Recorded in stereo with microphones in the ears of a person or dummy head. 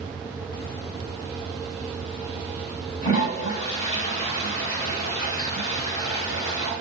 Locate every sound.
3.0 s a toilet flushing: 45° left (ahead or behind), 2.5 m